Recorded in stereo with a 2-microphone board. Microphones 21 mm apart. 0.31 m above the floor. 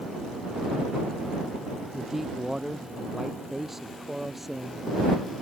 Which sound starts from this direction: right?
A man speaking, at 1.9 s.